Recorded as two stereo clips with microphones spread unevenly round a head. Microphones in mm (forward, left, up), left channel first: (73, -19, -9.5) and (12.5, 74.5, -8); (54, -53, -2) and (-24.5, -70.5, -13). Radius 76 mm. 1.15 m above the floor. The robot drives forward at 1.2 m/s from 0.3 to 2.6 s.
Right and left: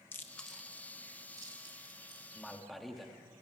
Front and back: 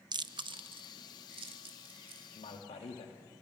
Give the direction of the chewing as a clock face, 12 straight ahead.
4 o'clock.